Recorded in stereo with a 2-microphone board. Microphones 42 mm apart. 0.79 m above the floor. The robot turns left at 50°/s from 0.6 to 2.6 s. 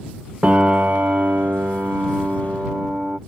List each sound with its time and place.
0.4 s a piano: 40° right; by 3.2 s 140° right